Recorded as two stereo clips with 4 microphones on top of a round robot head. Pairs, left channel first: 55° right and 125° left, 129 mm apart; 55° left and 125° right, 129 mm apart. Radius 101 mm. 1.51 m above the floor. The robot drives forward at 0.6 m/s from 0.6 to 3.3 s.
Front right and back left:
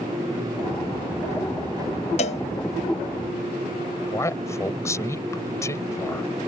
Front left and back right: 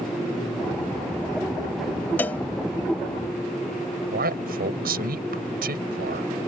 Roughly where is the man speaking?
Behind right.